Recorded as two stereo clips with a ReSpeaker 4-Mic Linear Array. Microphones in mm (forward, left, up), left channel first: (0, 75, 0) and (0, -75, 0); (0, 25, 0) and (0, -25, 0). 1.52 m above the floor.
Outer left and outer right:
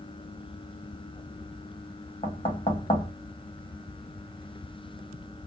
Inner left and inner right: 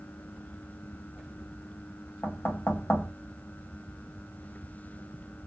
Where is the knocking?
40° left (ahead or behind), 1.5 m.